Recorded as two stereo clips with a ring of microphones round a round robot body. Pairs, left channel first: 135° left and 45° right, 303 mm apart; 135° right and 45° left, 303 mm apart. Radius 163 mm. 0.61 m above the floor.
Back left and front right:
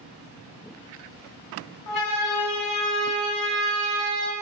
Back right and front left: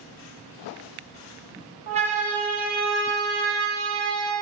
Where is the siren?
115° left, 5 m; by 4.3 s 95° left, 8.5 m.